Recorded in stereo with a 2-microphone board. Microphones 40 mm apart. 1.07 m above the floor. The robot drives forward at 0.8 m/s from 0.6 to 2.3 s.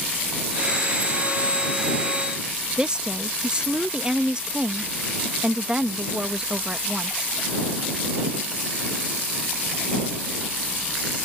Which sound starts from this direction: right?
A woman speaking, at 2.8 s.